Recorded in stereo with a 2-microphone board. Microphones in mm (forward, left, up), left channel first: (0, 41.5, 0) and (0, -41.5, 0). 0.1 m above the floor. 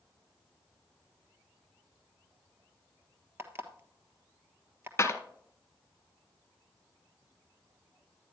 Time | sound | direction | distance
3.4 | an alarm clock | 30° right (ahead or behind) | 1.2 m
5.0 | a clap | 30° left (ahead or behind) | 1.3 m